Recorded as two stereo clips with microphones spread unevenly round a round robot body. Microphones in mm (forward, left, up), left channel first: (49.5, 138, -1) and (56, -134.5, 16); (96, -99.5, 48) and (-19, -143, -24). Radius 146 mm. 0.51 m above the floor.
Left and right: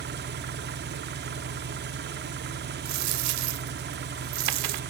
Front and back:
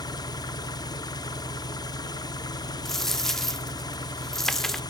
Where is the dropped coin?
60° right, 0.6 m.